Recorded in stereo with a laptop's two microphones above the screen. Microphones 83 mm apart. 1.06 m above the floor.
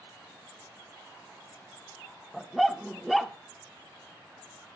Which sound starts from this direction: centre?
A dog barking, at 2.3 s.